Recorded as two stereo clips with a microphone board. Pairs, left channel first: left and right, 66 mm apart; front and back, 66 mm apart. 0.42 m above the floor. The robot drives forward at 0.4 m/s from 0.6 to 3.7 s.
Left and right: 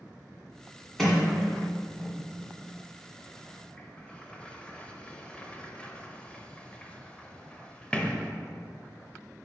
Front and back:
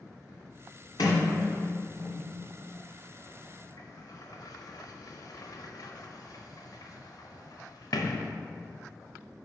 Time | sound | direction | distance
1.0 | a sliding door | 5° left | 1.6 m